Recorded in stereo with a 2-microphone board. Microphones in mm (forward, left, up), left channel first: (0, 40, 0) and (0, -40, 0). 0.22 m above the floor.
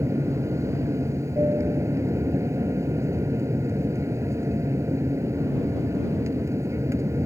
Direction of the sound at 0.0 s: 35° right (ahead or behind).